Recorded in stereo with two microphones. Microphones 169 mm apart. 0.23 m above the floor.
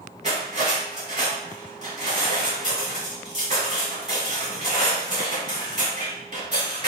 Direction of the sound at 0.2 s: 45° right (ahead or behind).